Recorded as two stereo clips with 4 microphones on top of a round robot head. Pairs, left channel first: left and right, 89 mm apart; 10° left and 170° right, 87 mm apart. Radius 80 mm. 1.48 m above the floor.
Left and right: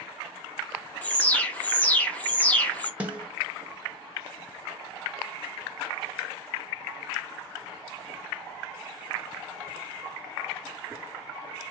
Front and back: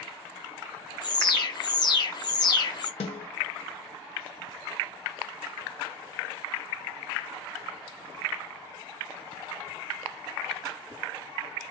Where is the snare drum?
15° right, 0.8 m.